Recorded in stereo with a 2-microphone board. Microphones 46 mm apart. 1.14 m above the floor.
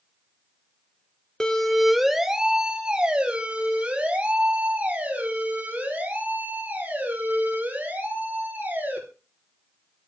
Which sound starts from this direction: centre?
A siren, at 1.4 s.